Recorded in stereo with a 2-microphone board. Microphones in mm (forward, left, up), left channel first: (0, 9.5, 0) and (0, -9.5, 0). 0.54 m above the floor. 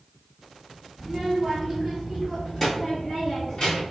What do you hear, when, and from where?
1.0 s a child speaking: 15° right (ahead or behind), 1.4 m; by 3.8 s 40° left (ahead or behind), 2 m